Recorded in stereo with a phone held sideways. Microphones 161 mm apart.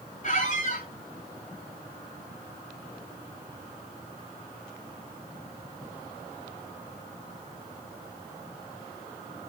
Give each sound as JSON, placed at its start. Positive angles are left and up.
{"t": 0.2, "sound": "a squeak", "side_deg": 55, "distance_m": 2.5}